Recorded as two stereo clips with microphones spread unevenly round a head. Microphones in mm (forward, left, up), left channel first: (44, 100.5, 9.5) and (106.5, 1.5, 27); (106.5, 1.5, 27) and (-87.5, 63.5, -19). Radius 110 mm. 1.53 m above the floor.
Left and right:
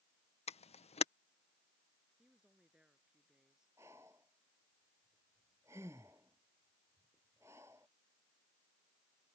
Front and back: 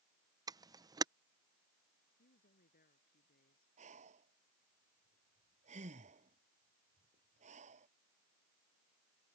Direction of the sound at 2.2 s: 25° left.